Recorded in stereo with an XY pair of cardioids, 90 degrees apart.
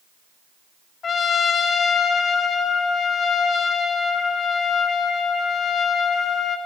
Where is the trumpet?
55° left, 0.9 m.